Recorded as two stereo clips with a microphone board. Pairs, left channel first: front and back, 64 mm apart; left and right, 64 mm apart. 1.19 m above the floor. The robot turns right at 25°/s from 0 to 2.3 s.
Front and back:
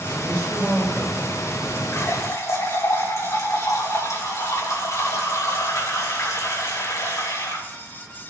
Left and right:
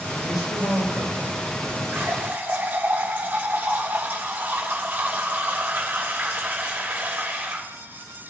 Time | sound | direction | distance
0.2 | a man speaking | 70° left | 4 m
1.9 | a running tap | 35° right | 3 m